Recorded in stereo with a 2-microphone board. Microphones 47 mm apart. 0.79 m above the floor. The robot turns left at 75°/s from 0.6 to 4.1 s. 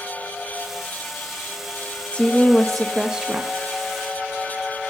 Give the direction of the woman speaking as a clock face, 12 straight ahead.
10 o'clock.